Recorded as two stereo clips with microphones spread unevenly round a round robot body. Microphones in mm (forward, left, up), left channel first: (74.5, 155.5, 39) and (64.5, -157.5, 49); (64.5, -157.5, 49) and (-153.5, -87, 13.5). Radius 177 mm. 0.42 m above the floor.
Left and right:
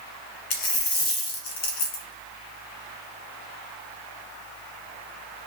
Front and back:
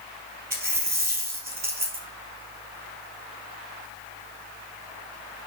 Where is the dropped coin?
95° left, 1.7 m.